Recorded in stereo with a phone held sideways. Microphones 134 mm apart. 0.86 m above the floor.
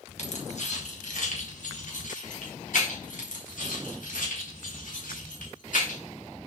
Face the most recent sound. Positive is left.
turn(degrees=85)